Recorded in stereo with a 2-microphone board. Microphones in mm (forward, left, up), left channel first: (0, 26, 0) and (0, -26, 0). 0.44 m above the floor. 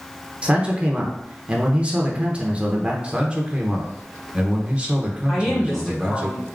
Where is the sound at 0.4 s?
25° right (ahead or behind), 0.8 m.